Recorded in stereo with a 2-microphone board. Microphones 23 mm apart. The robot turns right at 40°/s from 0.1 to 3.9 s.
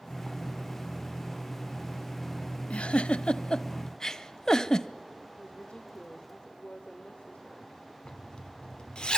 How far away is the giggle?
About 0.7 m.